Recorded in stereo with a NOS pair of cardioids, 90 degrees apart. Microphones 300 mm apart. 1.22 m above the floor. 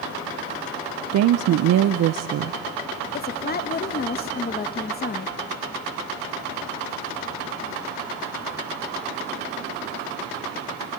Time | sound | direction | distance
1.1 | a woman speaking | 70° right | 0.7 m
3.1 | a woman speaking | 35° left | 1.4 m